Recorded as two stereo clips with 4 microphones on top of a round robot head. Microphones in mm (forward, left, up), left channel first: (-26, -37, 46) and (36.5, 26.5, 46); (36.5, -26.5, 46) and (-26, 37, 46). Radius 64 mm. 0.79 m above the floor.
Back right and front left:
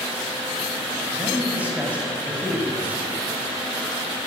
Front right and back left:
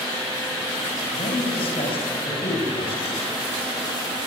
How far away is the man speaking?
About 6.5 m.